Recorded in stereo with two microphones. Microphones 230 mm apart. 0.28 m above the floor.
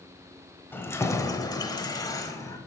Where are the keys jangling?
10° left (ahead or behind), 0.8 m; by 2.6 s 15° left (ahead or behind), 1.1 m.